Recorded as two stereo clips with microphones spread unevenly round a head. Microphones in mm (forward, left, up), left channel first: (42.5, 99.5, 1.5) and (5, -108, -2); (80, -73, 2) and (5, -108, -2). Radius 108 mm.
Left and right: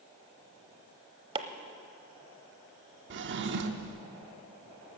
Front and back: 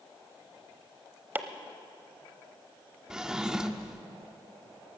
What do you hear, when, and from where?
1.4 s chopping: 120° right, 0.8 m
3.1 s a drawer: 70° right, 0.9 m